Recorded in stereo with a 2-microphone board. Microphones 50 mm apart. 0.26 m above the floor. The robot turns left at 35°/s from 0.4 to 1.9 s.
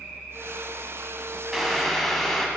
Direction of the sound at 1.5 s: 5° right (ahead or behind).